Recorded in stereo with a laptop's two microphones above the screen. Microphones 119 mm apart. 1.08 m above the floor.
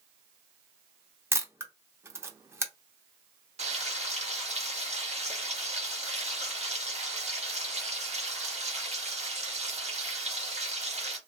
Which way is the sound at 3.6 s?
65° right (ahead or behind).